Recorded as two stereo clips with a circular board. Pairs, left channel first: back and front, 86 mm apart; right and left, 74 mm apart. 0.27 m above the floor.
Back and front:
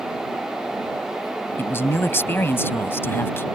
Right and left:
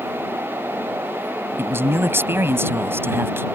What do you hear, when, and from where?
1.6 s a man speaking: 130° left